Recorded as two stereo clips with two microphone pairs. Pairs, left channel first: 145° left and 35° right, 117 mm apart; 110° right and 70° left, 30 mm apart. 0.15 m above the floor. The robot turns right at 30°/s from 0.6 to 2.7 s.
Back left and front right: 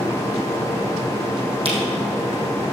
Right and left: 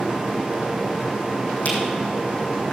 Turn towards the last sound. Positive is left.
turn(degrees=-40)